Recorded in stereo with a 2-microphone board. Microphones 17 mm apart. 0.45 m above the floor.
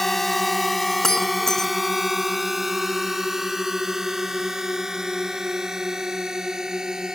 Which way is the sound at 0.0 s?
15° left (ahead or behind).